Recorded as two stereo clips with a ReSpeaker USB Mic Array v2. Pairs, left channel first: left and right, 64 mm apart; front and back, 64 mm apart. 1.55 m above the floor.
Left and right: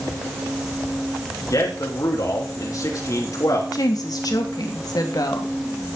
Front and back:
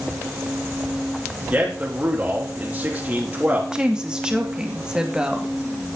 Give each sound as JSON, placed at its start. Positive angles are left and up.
{"t": 1.5, "sound": "a man speaking", "azimuth_deg": 110, "distance_m": 4.0}
{"t": 3.7, "sound": "a woman speaking", "azimuth_deg": 100, "distance_m": 3.0}